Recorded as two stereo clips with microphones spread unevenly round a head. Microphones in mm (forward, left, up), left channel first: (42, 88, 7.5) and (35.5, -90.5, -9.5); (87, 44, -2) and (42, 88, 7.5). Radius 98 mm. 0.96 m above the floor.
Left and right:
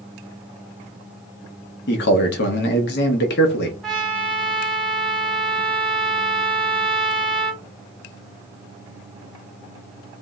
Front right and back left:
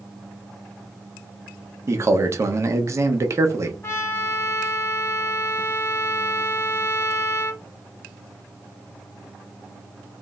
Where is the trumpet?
Straight ahead, 1.3 m.